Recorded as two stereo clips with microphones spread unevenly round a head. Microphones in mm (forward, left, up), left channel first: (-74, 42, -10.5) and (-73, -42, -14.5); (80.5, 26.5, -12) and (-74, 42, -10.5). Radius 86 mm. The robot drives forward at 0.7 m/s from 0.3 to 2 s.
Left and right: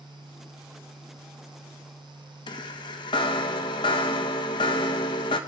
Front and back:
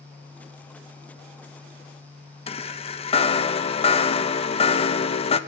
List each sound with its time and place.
2.5 s a chime: 45° left, 1.2 m